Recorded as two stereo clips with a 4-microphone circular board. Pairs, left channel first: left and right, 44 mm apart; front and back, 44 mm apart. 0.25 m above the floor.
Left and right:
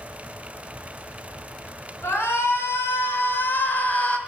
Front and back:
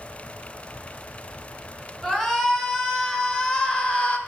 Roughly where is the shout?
Left.